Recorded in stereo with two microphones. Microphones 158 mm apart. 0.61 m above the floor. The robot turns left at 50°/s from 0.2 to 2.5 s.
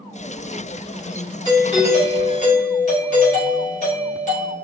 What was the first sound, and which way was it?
A doorbell, 140° left.